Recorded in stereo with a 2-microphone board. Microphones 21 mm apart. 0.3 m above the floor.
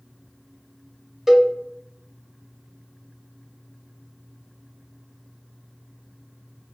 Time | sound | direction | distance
1.3 | a cowbell | 10° right (ahead or behind) | 0.9 m